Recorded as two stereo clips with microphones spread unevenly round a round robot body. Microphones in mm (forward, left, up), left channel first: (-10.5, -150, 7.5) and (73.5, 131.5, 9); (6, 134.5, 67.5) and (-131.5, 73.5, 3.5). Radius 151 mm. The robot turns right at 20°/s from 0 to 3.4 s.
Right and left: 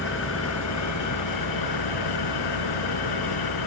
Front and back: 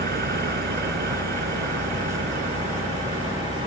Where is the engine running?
165° right; by 3.7 s 95° right.